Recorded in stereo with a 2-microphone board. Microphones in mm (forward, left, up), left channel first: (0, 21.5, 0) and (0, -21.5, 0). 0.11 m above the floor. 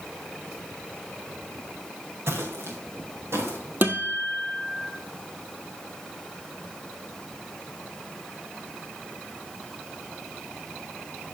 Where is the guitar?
45° right (ahead or behind), 1.4 m.